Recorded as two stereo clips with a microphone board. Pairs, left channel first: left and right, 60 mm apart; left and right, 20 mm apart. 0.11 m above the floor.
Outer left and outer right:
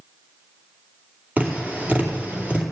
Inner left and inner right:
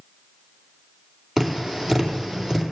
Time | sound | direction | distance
1.4 | tapping | 30° right (ahead or behind) | 2 m